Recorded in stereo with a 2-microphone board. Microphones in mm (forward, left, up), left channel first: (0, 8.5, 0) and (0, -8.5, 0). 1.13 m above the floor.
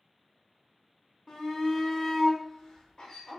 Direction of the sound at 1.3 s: 40° left (ahead or behind).